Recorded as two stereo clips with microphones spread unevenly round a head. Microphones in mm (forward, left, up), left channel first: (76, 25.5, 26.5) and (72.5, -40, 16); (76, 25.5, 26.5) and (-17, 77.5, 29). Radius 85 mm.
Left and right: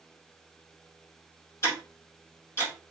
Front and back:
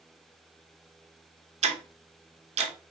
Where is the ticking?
155° left, 0.9 m.